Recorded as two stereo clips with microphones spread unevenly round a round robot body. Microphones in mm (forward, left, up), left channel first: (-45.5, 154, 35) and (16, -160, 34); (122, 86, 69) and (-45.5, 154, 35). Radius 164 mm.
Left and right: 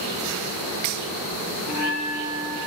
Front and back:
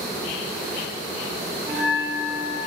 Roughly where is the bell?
Behind.